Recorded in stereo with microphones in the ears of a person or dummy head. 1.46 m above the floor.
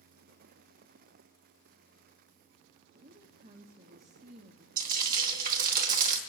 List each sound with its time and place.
2.9 s a woman speaking: 45° right (ahead or behind), 0.8 m
4.8 s frying: 50° right (ahead or behind), 1.1 m